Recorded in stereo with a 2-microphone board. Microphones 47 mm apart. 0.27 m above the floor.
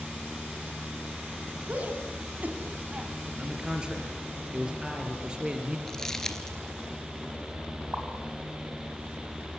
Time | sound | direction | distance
1.7 | a shout | 30° right (ahead or behind) | 2.5 m
3.4 | a man speaking | 15° right (ahead or behind) | 4 m
5.9 | crumpling | 10° left (ahead or behind) | 2 m
7.9 | a pop | 30° right (ahead or behind) | 5.5 m